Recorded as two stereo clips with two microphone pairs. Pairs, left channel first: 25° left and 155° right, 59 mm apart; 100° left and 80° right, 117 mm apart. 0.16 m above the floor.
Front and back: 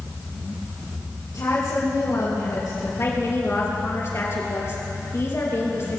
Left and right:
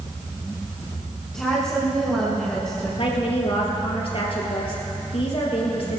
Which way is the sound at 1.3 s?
15° left.